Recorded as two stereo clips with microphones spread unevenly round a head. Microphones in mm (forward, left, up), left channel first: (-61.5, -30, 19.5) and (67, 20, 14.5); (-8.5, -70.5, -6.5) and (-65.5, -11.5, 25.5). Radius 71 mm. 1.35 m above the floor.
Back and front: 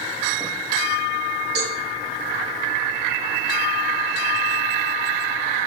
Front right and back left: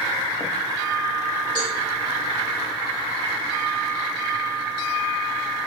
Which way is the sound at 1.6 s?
20° left.